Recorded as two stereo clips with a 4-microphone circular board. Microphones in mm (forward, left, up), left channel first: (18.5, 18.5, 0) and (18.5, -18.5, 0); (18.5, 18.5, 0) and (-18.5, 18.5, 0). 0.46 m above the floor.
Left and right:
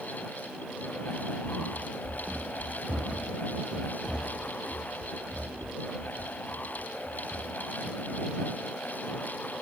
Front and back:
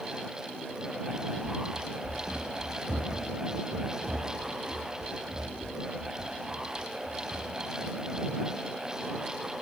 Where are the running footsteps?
120° right; by 8.4 s 160° right.